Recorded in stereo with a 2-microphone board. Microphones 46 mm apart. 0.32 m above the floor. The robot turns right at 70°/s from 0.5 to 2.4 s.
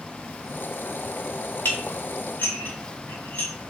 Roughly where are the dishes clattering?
Left.